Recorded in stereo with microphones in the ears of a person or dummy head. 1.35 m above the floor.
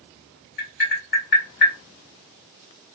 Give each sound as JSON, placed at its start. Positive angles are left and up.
{"t": 0.6, "sound": "tapping", "side_deg": 50, "distance_m": 1.5}